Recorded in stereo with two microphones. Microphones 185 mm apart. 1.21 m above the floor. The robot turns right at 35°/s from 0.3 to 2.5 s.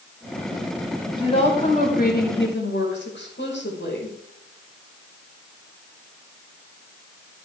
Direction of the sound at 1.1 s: 25° left.